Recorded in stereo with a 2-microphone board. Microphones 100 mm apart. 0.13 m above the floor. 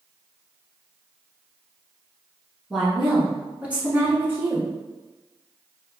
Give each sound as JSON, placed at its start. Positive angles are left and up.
{"t": 2.7, "sound": "a woman speaking", "side_deg": 0, "distance_m": 1.3}